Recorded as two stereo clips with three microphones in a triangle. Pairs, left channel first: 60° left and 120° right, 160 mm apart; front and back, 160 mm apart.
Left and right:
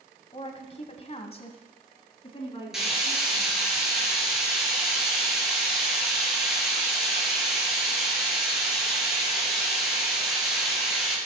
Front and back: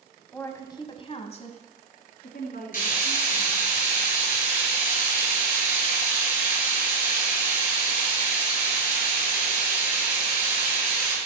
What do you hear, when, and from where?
0.3 s a woman speaking: 70° left, 1.4 m; by 3.6 s straight ahead, 3 m
2.7 s frying: 30° right, 4.5 m